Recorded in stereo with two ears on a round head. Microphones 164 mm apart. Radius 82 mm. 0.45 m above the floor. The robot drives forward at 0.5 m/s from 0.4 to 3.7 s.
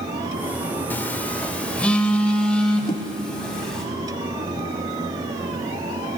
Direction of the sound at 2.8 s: 20° left (ahead or behind).